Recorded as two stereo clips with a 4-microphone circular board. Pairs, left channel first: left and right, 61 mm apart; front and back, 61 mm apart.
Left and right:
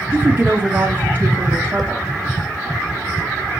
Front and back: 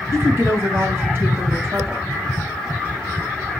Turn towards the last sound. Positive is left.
turn(degrees=-145)